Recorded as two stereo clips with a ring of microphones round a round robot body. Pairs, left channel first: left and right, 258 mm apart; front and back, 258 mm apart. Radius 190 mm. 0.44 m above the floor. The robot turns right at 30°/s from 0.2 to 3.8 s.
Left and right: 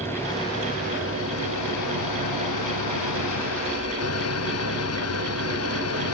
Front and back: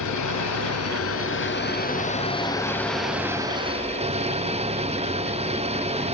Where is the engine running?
5° left; by 6.1 s 115° left.